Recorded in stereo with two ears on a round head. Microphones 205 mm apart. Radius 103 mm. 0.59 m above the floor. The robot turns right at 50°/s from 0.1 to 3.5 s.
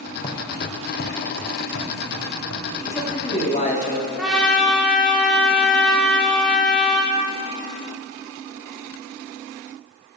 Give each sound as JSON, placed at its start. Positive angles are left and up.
{"t": 0.2, "sound": "footsteps", "side_deg": 25, "distance_m": 1.5}
{"t": 2.9, "sound": "a man speaking", "azimuth_deg": 20, "distance_m": 1.2}
{"t": 4.2, "sound": "a trumpet", "side_deg": 0, "distance_m": 1.3}